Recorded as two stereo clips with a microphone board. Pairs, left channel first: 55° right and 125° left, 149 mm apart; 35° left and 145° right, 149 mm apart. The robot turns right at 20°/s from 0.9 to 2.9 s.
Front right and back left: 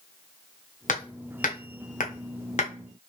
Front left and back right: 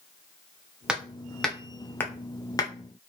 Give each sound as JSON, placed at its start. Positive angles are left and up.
{"t": 0.9, "sound": "hammering", "azimuth_deg": -60, "distance_m": 0.7}